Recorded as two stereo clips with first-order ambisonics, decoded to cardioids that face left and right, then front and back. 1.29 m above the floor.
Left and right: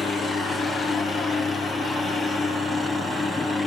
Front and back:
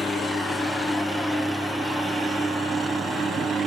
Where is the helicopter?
55° left; by 3.7 s 145° left.